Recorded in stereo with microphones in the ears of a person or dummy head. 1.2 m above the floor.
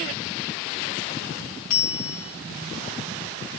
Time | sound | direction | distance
1.7 | a bell | 35° left (ahead or behind) | 0.8 m